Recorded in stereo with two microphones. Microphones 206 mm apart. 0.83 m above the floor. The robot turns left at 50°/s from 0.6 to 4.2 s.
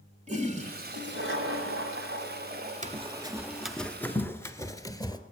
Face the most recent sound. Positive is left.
turn(degrees=20)  # may be behind; listen again after turning